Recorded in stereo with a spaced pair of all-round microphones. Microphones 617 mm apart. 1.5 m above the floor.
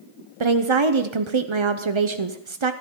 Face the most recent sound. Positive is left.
turn(degrees=-50)  # may be behind; listen again after turning